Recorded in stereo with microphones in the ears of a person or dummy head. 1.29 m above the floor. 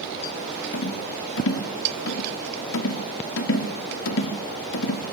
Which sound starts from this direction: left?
A rattle, at 0.7 s.